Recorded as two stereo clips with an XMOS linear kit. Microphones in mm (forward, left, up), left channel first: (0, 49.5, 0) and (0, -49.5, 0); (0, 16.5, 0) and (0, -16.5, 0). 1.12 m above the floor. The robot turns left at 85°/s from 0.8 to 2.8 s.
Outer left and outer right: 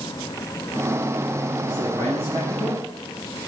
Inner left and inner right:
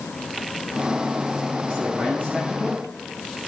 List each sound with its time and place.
1.7 s a man speaking: 60° right, 8 m; by 2.8 s 155° right, 8 m